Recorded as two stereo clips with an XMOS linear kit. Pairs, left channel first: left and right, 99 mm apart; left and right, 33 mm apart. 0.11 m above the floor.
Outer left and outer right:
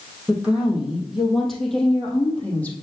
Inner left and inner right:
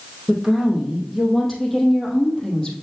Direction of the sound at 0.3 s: 10° right (ahead or behind).